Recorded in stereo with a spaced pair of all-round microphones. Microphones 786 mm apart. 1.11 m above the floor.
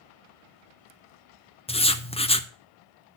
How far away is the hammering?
I don't hear hammering.